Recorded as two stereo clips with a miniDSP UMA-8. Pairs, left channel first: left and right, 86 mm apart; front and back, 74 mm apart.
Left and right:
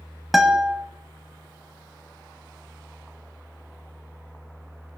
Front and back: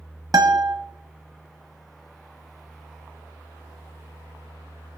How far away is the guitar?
About 1.4 m.